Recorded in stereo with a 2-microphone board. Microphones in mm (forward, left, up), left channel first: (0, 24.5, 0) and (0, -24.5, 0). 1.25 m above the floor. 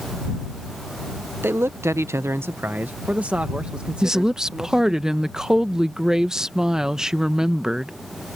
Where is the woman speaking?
15° right (ahead or behind).